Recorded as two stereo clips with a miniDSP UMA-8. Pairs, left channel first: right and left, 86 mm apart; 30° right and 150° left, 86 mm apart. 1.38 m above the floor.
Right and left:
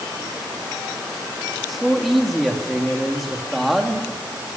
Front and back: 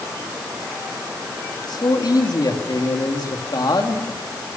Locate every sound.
1.7 s a man speaking: straight ahead, 3 m